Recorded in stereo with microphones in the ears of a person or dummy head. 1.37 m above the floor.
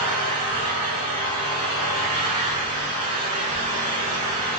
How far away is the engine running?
About 1.7 m.